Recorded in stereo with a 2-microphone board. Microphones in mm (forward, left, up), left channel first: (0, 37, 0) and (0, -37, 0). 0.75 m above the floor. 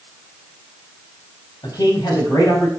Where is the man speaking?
75° left (ahead or behind), 6.5 m; by 2.7 s 65° left (ahead or behind), 7 m.